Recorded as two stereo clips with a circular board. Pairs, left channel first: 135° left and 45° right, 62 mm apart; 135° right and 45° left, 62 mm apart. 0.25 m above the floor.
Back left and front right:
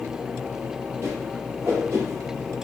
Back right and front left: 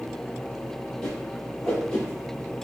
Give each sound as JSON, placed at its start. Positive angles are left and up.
{"t": 1.0, "sound": "a whoosh", "azimuth_deg": -60, "distance_m": 1.0}